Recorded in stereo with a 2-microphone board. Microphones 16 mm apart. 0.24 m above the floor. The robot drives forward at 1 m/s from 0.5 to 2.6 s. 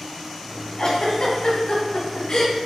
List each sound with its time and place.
0.8 s a giggle: 40° left (ahead or behind), 2.0 m